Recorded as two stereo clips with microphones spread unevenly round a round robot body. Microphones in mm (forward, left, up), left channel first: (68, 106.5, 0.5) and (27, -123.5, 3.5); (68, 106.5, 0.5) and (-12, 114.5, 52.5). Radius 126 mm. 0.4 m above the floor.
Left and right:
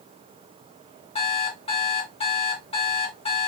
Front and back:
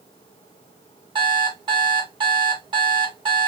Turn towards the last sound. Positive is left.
turn(degrees=150)